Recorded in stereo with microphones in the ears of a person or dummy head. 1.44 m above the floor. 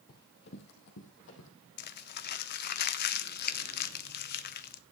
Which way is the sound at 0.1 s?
50° left (ahead or behind).